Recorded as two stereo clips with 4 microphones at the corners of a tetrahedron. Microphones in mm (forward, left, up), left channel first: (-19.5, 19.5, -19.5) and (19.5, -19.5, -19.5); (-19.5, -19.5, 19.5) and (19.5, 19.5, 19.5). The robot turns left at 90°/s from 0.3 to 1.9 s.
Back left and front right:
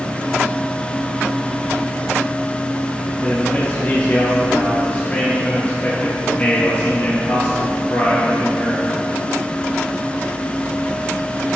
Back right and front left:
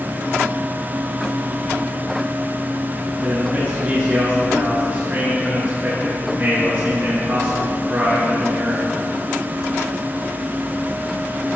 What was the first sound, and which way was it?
A man speaking, 90° left.